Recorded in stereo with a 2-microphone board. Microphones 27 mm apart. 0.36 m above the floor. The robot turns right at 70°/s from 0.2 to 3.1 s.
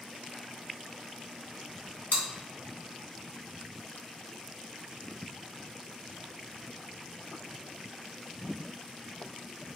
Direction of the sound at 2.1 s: 65° left (ahead or behind).